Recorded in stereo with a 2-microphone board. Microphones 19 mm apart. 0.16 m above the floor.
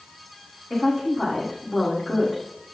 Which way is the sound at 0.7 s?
Centre (ahead or behind).